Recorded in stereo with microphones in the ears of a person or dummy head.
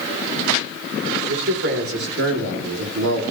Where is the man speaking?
65° right (ahead or behind), 3.5 m; by 3.2 s 70° right (ahead or behind), 2 m.